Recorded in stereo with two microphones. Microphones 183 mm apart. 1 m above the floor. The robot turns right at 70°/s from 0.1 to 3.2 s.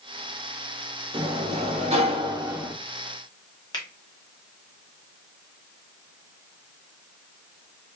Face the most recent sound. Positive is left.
turn(degrees=25)  # may be behind; listen again after turning